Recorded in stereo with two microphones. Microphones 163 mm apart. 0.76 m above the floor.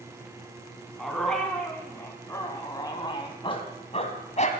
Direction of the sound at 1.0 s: Centre (ahead or behind).